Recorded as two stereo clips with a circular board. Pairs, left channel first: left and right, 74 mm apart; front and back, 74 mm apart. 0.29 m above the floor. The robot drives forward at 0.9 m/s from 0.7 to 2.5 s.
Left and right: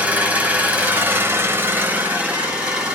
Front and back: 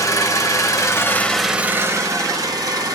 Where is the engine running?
25° right, 0.8 m; by 3.0 s 165° right, 1.1 m.